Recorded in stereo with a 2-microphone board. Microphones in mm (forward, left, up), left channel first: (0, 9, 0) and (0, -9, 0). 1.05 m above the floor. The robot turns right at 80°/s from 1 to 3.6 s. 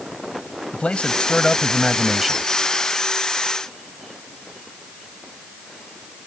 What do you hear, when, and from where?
0.7 s a man speaking: 95° left; by 2.5 s 150° right